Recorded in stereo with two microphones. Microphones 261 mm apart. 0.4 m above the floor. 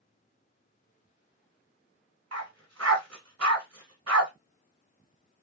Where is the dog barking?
70° right (ahead or behind), 1.0 m.